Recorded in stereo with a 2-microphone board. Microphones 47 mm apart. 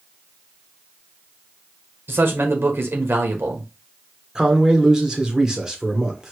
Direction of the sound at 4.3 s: 10° right (ahead or behind).